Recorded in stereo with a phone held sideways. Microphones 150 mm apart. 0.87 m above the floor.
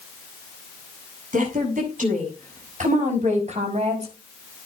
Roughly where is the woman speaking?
Right.